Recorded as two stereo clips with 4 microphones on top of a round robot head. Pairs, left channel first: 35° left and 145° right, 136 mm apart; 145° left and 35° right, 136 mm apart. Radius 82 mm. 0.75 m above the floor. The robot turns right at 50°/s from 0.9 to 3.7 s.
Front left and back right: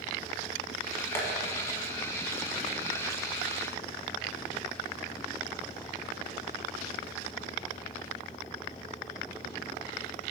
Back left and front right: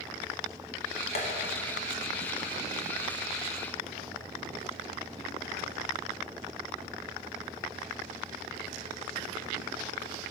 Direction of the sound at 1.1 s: 105° left.